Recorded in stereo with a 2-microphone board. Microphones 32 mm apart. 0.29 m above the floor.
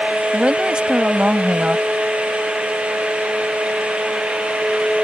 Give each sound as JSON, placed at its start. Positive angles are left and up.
{"t": 0.3, "sound": "a woman speaking", "side_deg": -35}